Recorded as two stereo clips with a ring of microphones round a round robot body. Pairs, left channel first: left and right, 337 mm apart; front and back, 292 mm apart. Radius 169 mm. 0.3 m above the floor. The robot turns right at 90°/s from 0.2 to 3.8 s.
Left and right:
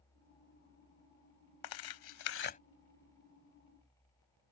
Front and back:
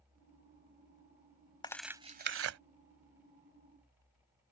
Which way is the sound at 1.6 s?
75° left.